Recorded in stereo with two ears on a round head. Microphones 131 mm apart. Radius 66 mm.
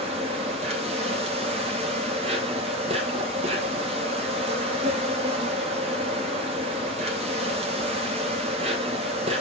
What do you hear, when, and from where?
0.0 s an insect: 45° right (ahead or behind), 2 m